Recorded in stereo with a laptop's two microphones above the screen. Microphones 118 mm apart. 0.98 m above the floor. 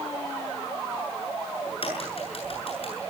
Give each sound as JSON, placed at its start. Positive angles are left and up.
{"t": 1.7, "sound": "a crack", "side_deg": 55, "distance_m": 8.5}